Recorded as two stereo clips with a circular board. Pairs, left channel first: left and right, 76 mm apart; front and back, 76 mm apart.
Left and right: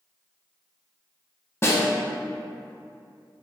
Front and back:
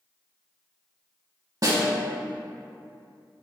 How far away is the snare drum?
About 0.9 m.